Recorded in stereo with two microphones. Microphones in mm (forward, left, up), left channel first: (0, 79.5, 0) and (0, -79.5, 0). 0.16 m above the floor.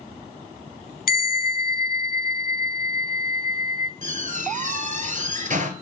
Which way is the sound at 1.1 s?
65° left (ahead or behind).